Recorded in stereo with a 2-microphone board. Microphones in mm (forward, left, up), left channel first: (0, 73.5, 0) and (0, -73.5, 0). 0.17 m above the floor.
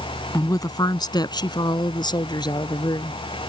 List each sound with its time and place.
0.3 s a woman speaking: 20° left (ahead or behind); by 3.2 s 30° left (ahead or behind)